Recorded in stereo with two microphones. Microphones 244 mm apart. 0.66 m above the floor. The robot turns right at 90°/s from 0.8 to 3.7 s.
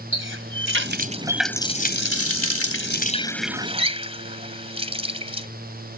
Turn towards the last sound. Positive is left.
turn(degrees=-155)